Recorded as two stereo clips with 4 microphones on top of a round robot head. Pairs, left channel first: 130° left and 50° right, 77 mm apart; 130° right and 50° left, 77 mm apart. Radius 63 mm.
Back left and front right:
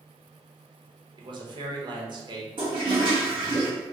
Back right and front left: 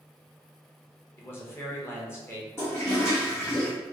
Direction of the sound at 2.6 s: 70° right.